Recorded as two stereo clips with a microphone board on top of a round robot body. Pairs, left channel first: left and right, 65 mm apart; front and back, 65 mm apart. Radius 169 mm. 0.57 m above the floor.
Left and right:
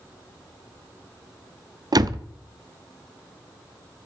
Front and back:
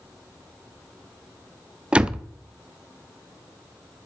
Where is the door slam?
105° right, 0.9 m.